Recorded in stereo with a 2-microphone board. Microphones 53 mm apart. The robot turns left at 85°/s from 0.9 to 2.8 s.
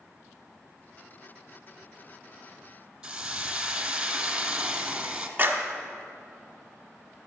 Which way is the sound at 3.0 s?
15° right (ahead or behind).